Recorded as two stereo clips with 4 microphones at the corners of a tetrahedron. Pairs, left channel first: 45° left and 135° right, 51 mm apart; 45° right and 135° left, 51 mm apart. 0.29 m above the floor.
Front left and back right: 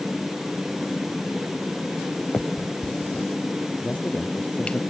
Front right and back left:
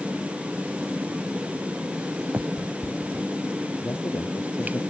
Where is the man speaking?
20° right.